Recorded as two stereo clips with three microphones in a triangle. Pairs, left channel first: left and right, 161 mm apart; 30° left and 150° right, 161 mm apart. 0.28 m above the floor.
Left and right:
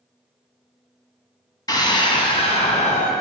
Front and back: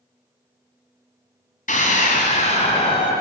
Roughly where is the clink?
I don't hear a clink.